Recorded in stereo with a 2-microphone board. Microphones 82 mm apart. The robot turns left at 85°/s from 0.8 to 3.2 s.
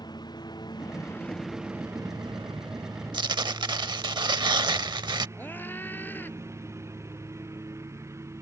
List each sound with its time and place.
0.0 s a lawn mower: 60° left; by 8.4 s 145° right
3.1 s tearing paper: 70° right (ahead or behind)
5.4 s a scream: 25° left (ahead or behind)